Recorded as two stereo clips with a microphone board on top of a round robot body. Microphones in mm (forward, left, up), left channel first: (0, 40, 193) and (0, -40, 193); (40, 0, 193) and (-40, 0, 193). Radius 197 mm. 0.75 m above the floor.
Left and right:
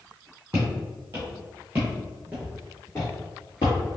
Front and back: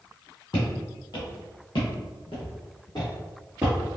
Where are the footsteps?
30° right, 1.5 m; by 4.0 s 120° left, 0.8 m.